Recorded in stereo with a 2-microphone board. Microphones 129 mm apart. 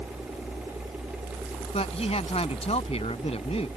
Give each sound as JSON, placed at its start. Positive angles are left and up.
{"t": 1.7, "sound": "a man speaking", "side_deg": 55}